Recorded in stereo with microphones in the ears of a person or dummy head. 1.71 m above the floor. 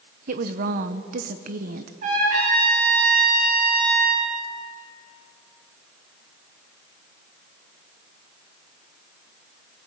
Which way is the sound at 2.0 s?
40° right (ahead or behind).